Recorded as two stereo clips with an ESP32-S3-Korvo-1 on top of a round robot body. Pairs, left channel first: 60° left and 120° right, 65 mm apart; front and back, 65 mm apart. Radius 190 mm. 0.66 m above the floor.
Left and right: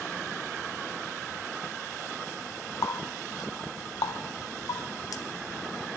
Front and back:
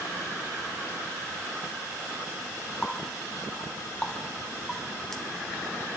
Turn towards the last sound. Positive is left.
turn(degrees=85)